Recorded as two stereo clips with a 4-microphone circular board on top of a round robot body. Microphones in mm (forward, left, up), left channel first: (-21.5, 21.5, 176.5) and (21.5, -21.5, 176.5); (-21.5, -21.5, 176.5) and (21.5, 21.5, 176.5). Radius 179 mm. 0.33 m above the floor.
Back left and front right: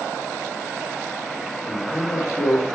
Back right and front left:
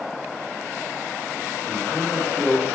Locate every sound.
1.7 s a man speaking: 120° left, 1.7 m